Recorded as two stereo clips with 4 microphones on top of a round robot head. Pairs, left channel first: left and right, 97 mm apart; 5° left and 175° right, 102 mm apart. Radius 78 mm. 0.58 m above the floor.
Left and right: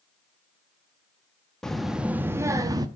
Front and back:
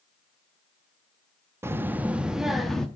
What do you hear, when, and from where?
1.6 s a child speaking: 165° left, 0.6 m; by 2.9 s 75° right, 0.7 m